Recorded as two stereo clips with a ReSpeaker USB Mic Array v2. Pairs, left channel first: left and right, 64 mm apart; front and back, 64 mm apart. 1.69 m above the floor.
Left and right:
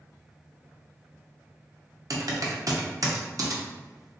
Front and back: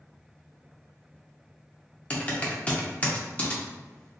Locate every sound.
2.1 s typing on a keyboard: 65° right, 0.5 m